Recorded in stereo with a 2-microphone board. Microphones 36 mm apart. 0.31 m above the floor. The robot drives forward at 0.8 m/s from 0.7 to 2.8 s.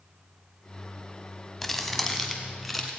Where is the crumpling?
10° left (ahead or behind), 1.2 m; by 2.9 s 5° left (ahead or behind), 2 m.